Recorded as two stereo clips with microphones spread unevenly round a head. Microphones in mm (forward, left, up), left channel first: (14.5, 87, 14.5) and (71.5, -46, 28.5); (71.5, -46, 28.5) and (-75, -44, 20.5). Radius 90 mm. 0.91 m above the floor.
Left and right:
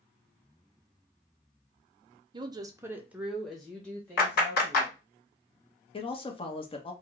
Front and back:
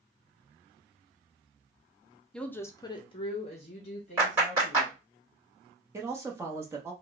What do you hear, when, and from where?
2.3 s a woman speaking: 90° right, 0.6 m; by 5.0 s 45° left, 1.3 m
4.2 s a clap: 105° left, 1.9 m
5.9 s a man speaking: 120° left, 0.8 m